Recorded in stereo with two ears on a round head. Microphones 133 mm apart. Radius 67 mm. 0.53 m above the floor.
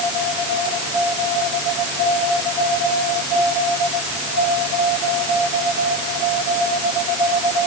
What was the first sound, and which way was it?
Only background noise.